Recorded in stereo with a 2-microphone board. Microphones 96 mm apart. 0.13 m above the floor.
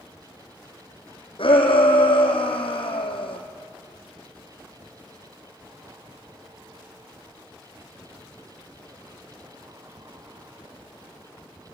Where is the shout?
65° left (ahead or behind), 4 m.